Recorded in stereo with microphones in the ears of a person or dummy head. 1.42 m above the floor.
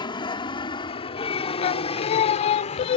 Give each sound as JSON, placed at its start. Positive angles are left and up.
{"t": 0.0, "sound": "an aircraft", "side_deg": 25}
{"t": 1.6, "sound": "singing", "side_deg": 35}